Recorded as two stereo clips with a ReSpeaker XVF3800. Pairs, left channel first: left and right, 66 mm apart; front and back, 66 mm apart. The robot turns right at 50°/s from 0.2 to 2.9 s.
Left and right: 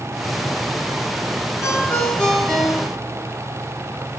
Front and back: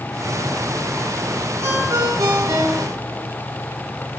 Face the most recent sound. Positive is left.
turn(degrees=-160)